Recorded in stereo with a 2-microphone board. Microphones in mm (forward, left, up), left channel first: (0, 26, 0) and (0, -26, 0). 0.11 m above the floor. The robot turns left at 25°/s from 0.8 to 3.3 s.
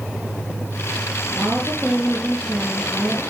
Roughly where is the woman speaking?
Behind right.